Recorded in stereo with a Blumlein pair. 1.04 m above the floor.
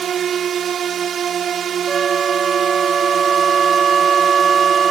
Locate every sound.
0.0 s a drone: 25° right
1.9 s a flute: 15° right